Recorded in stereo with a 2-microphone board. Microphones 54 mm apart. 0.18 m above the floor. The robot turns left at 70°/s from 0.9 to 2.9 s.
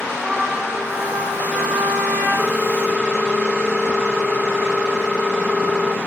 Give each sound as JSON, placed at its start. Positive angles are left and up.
{"t": 0.2, "sound": "a trumpet", "azimuth_deg": -10, "distance_m": 7.0}
{"t": 2.4, "sound": "a ringtone", "azimuth_deg": -145, "distance_m": 1.3}